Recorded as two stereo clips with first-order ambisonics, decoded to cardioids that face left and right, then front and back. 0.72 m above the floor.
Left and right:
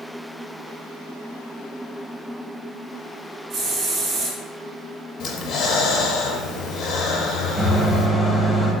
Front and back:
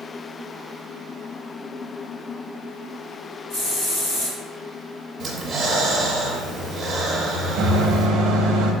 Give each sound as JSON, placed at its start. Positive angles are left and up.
{"t": 3.5, "sound": "a hiss", "azimuth_deg": -45, "distance_m": 1.7}
{"t": 5.2, "sound": "breathing", "azimuth_deg": 120, "distance_m": 0.6}
{"t": 7.6, "sound": "a microwave", "azimuth_deg": 175, "distance_m": 0.6}